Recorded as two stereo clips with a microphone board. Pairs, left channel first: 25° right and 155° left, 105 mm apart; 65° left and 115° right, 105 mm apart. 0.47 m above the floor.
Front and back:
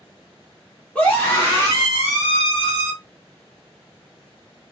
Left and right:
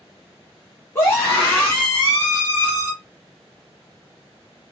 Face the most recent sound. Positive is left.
turn(degrees=-5)